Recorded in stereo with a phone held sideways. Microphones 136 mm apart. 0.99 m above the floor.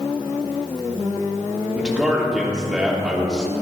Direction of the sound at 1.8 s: 5° right (ahead or behind).